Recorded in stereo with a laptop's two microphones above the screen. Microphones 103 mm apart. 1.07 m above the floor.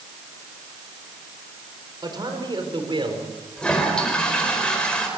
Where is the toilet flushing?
10° left (ahead or behind), 4 m.